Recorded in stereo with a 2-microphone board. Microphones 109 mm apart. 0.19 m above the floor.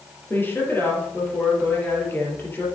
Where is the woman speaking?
20° left (ahead or behind), 4.5 m.